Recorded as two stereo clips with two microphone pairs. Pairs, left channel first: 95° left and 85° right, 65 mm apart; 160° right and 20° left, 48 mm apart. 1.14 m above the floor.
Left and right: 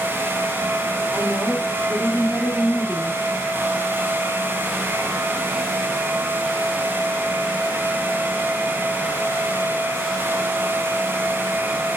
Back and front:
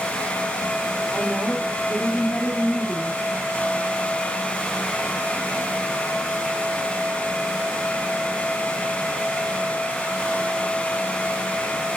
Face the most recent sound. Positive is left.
turn(degrees=-155)